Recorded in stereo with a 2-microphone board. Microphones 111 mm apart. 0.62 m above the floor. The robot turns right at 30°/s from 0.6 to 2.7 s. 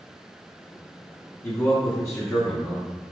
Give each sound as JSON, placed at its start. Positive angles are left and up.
{"t": 1.4, "sound": "a man speaking", "side_deg": 30, "distance_m": 0.8}